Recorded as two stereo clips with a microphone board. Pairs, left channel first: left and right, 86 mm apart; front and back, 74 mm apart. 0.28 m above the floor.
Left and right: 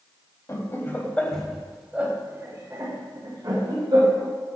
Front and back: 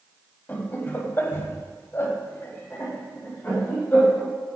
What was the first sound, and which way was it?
Laughter, 55° left.